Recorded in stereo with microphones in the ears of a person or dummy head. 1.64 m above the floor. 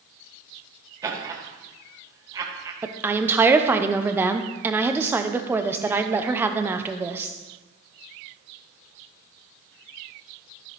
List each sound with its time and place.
1.0 s laughter: 20° right (ahead or behind), 1.4 m
2.8 s a woman speaking: 10° right (ahead or behind), 0.8 m